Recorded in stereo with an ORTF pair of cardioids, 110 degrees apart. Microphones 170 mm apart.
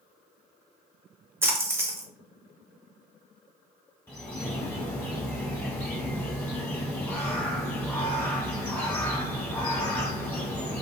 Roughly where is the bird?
Ahead.